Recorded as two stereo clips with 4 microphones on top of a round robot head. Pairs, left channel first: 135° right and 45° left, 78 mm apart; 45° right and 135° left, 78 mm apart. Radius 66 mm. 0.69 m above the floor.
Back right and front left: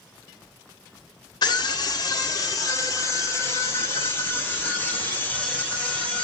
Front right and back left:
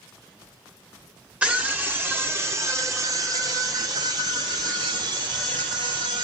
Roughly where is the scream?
Behind right.